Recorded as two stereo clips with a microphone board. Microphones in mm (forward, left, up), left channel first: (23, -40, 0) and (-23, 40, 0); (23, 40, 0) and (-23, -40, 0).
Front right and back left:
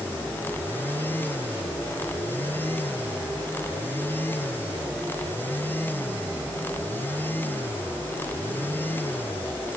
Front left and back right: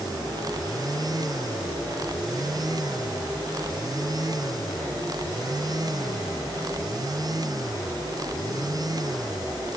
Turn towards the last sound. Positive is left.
No sound to turn to.